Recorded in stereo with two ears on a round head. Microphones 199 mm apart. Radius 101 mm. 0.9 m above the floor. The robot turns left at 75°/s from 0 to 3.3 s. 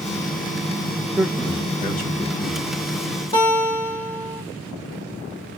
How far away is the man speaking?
About 1.0 m.